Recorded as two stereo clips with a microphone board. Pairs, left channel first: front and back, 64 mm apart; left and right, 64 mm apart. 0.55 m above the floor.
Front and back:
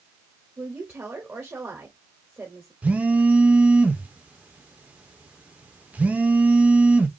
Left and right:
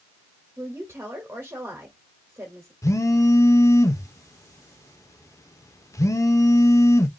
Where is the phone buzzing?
115° left, 0.7 m.